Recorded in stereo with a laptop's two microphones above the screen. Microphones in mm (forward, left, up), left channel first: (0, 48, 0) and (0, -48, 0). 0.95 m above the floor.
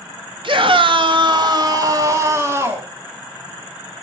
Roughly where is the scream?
Right.